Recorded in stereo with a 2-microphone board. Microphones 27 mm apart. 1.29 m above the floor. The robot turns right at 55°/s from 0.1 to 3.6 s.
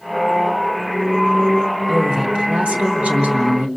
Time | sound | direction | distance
1.9 | a woman speaking | 160° right | 2.5 m